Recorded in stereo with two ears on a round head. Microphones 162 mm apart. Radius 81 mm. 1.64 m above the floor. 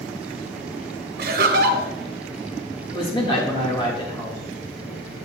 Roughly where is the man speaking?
Left.